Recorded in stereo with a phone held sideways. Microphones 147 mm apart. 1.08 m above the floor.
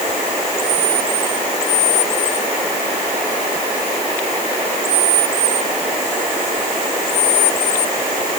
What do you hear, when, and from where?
Only background noise.